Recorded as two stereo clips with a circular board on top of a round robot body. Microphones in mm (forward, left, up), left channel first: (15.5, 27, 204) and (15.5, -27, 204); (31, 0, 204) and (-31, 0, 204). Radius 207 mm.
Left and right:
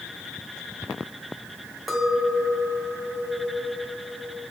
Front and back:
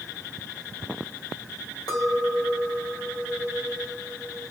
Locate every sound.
1.9 s a clink: straight ahead, 3.5 m